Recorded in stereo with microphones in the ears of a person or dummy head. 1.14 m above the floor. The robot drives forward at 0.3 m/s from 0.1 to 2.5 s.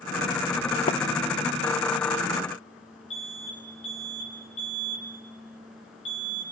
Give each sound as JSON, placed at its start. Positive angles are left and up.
{"t": 0.9, "sound": "a splash", "side_deg": 35, "distance_m": 0.9}
{"t": 3.1, "sound": "an alarm", "side_deg": 45, "distance_m": 9.0}